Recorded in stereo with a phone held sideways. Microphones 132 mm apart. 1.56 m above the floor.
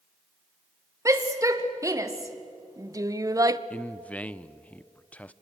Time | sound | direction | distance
1.1 | a shout | 25° right (ahead or behind) | 2.5 m
3.7 | a man speaking | 10° left (ahead or behind) | 0.6 m